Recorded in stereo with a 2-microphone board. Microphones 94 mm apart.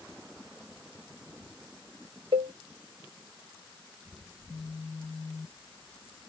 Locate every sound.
2.3 s a cowbell: 75° right (ahead or behind)
4.3 s a phone buzzing: 25° left (ahead or behind)